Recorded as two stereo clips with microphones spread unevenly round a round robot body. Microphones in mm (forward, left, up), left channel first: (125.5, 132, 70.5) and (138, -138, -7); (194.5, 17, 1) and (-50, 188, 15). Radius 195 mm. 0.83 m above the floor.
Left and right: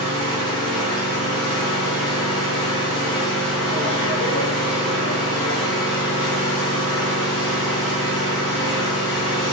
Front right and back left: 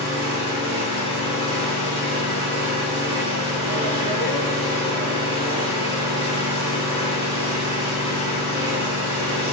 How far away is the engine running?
About 5 m.